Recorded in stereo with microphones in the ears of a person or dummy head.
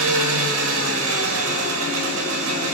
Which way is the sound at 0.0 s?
85° right.